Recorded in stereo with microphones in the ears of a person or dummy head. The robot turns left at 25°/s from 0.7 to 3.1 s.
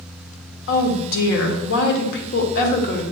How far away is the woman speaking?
About 1.0 m.